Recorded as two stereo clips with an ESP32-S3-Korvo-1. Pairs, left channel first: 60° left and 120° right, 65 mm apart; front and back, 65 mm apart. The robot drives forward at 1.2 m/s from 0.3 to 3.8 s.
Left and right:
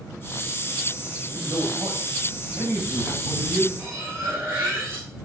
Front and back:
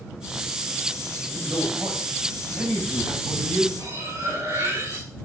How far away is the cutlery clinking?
About 6 m.